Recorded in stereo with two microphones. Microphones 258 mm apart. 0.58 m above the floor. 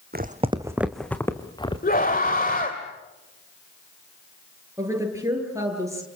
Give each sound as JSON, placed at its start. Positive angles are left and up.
{"t": 0.1, "sound": "footsteps", "side_deg": -40, "distance_m": 1.3}
{"t": 1.8, "sound": "a scream", "side_deg": 35, "distance_m": 2.0}
{"t": 4.8, "sound": "a woman speaking", "side_deg": -10, "distance_m": 9.0}